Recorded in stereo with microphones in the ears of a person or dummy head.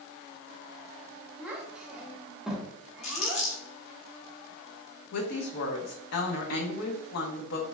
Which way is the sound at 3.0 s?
35° left (ahead or behind).